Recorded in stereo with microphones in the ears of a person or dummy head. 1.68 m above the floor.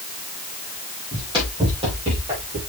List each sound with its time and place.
1.1 s running footsteps: 25° right (ahead or behind), 4.5 m; by 2.6 s 40° right (ahead or behind), 4 m